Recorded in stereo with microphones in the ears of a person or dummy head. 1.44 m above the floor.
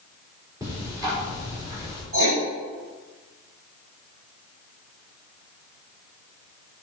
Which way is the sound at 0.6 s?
15° right (ahead or behind).